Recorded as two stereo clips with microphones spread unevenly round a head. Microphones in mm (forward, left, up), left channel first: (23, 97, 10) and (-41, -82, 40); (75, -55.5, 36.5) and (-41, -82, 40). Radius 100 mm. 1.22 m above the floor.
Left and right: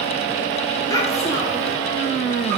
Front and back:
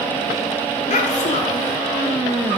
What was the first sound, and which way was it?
A child speaking, 5° right.